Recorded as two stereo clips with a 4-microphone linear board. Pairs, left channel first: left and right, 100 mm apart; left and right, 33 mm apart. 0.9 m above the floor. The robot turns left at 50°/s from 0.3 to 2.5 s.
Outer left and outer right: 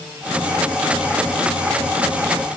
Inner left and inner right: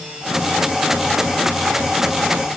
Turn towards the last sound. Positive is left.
No sound to turn to.